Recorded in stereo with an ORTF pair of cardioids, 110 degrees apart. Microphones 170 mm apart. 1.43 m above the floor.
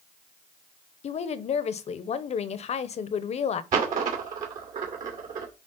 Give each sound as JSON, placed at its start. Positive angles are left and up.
{"t": 1.0, "sound": "a woman speaking", "azimuth_deg": 40, "distance_m": 0.9}
{"t": 3.7, "sound": "a dropped coin", "azimuth_deg": -60, "distance_m": 2.5}